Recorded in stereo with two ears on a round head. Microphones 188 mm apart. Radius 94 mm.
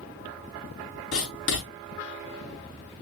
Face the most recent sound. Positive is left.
turn(degrees=70)  # may be behind; listen again after turning